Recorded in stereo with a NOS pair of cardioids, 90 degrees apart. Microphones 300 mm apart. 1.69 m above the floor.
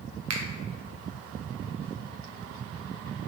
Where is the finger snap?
60° right, 0.8 m.